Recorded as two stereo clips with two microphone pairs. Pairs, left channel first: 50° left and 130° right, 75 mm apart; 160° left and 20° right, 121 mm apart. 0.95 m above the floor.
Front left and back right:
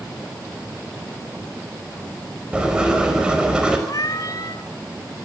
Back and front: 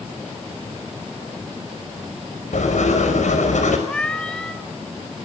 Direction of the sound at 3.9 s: 75° left.